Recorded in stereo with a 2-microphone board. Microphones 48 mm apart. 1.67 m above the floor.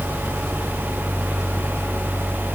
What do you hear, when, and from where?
Only background noise.